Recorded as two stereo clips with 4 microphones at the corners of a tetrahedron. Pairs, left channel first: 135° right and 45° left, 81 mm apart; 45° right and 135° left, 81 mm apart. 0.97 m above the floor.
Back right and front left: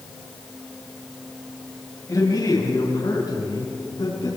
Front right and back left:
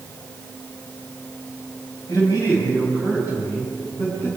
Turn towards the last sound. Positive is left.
turn(degrees=-95)